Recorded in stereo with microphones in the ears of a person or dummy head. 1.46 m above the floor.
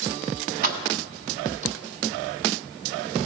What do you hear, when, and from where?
0.6 s keys jangling: 45° right (ahead or behind), 1.0 m; by 1.8 s 35° right (ahead or behind), 2 m